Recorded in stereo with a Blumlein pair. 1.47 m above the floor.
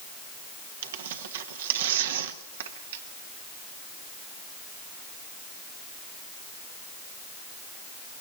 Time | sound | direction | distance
0.8 | tearing paper | 60° right | 1.3 m